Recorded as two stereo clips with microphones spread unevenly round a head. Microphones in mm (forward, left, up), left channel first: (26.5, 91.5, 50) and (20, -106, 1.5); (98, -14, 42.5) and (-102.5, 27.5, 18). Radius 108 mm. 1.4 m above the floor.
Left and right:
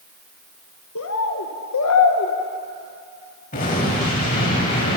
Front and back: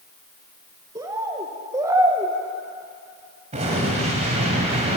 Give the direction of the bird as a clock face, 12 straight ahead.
9 o'clock.